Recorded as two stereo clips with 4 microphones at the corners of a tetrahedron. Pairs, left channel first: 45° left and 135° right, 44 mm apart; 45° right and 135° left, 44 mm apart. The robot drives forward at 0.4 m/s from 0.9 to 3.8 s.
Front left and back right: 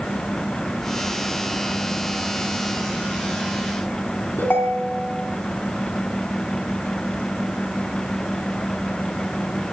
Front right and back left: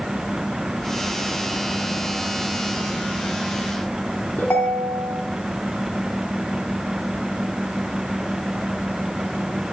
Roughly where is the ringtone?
Ahead.